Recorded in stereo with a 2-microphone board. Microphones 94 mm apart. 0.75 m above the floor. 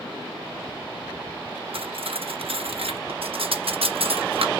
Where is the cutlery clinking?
85° right, 0.5 m.